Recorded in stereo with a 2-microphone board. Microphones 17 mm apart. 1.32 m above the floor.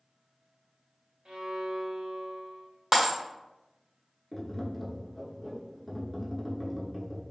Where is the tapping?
5° left (ahead or behind), 0.6 m.